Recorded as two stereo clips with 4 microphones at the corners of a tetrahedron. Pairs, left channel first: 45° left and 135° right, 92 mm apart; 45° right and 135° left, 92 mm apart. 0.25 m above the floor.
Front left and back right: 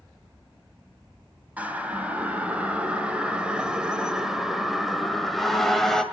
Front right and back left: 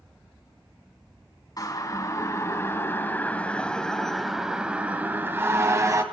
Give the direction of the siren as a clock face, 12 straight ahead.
2 o'clock.